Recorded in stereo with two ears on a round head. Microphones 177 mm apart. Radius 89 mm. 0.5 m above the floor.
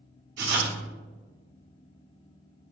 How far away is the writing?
About 0.6 m.